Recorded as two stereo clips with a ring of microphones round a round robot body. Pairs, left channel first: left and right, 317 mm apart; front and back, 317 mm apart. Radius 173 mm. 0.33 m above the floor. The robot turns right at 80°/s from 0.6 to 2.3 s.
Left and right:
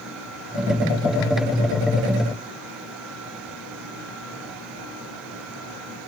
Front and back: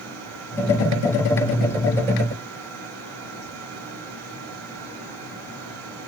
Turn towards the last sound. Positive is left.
No sound to turn to.